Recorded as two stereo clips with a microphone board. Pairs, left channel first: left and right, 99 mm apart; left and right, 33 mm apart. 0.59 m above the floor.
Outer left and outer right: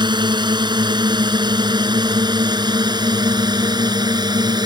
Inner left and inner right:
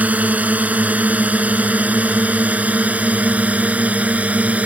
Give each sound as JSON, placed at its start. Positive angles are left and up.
{"t": 0.0, "sound": "a drone", "side_deg": -50}